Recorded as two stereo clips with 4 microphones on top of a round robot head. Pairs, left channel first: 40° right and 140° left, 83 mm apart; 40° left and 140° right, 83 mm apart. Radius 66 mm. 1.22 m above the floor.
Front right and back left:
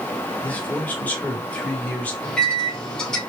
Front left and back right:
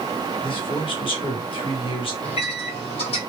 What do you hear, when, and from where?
0.4 s a man speaking: 30° left, 1.5 m
2.2 s a microwave: 40° left, 1.4 m